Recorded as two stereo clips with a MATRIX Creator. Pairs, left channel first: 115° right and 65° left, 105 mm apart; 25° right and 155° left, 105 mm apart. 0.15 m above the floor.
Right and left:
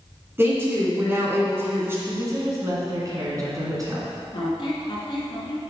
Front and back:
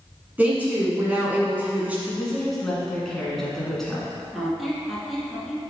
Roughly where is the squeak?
Behind right.